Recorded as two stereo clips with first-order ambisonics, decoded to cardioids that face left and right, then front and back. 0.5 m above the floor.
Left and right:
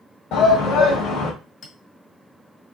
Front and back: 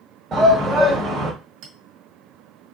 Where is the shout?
115° left, 1.5 m.